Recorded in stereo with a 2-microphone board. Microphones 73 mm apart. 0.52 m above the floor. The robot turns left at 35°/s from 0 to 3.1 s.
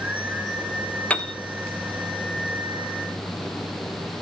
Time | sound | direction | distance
1.1 | a piano | 20° left (ahead or behind) | 1.1 m